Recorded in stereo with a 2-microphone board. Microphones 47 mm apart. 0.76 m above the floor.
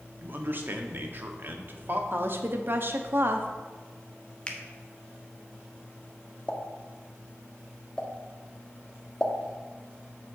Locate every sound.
0.2 s a man speaking: 45° right (ahead or behind), 1.0 m
2.1 s a woman speaking: 50° right (ahead or behind), 0.9 m
4.5 s a finger snap: 25° left (ahead or behind), 0.9 m
6.5 s a pop: 15° left (ahead or behind), 0.9 m